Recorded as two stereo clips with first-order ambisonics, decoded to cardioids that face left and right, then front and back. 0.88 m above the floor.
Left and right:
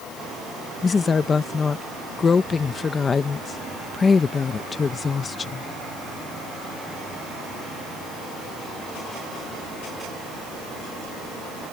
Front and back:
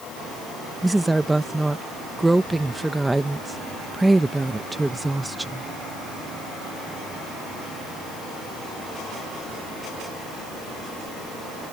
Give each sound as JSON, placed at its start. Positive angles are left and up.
{"t": 0.8, "sound": "a woman speaking", "azimuth_deg": 110}